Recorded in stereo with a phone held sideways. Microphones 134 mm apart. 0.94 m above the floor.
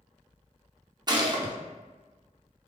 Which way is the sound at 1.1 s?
30° right (ahead or behind).